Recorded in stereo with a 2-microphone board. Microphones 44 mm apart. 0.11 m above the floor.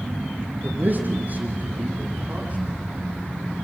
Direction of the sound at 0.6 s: 50° right (ahead or behind).